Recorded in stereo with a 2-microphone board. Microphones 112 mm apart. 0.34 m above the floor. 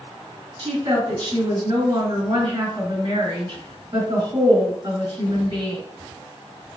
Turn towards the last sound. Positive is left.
turn(degrees=-45)  # may be behind; listen again after turning